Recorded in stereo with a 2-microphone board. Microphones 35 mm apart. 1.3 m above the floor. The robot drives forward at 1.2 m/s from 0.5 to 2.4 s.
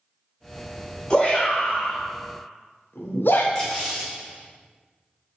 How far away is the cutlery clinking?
About 1.9 m.